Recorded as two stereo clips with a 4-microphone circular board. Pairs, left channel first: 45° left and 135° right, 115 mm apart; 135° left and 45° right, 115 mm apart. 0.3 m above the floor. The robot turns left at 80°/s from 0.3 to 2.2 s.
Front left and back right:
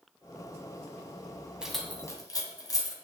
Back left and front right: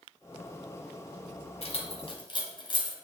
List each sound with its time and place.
1.6 s keys jangling: 145° left, 1.5 m; by 3.0 s 95° left, 1.5 m